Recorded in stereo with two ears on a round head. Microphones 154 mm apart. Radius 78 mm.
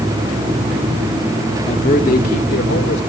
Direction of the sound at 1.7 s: 35° left (ahead or behind).